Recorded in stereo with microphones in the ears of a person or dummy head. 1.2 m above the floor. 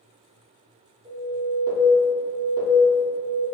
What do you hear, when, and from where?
1.1 s an alarm: 15° right (ahead or behind), 0.8 m